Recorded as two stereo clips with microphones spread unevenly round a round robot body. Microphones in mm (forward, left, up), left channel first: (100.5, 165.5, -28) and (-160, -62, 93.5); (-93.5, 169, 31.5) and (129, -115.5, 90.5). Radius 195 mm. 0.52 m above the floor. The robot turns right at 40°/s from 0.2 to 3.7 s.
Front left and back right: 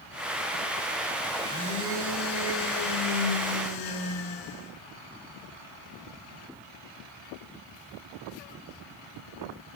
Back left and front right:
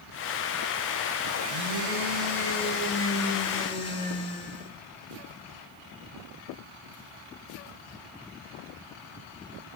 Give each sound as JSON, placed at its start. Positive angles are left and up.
{"t": 1.4, "sound": "a blender", "azimuth_deg": -40, "distance_m": 5.5}